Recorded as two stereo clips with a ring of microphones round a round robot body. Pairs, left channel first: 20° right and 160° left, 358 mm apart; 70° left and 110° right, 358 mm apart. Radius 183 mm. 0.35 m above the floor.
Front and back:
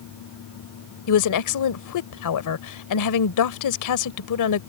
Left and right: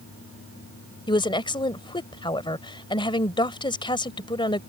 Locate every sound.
1.1 s a woman speaking: 5° right